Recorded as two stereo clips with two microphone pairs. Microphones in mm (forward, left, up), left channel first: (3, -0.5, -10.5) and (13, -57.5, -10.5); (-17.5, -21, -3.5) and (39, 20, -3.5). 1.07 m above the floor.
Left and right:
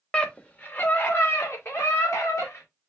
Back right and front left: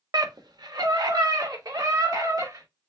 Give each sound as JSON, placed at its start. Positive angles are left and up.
{"t": 0.1, "sound": "a scream", "azimuth_deg": 20, "distance_m": 1.1}